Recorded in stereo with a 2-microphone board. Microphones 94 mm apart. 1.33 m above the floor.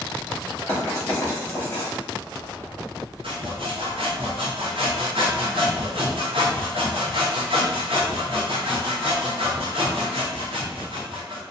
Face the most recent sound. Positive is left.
turn(degrees=-80)